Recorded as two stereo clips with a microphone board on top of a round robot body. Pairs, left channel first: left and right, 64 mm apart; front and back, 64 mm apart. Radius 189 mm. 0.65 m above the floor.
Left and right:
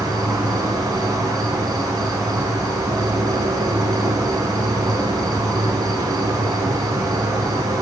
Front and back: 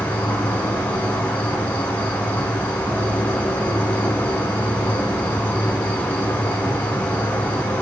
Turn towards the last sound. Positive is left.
turn(degrees=-65)